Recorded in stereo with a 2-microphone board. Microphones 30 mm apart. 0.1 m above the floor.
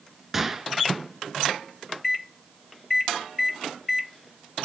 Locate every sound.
0.3 s a gunshot: 10° right (ahead or behind), 0.7 m